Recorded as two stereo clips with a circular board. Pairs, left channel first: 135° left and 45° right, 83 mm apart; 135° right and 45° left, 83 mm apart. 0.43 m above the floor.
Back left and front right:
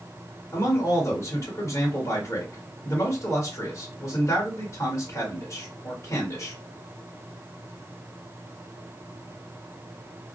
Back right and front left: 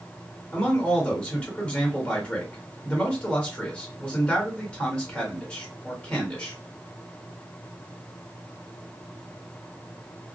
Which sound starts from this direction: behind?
A man speaking, at 0.5 s.